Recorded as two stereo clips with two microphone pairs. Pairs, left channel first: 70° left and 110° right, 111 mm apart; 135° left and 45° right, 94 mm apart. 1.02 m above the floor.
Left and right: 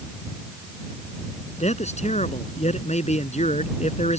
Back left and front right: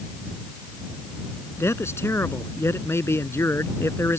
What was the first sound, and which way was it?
A man speaking, 70° left.